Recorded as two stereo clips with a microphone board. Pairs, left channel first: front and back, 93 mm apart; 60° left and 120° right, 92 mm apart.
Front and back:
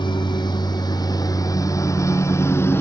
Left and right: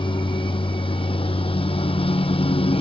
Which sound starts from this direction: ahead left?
A lawn mower, at 0.0 s.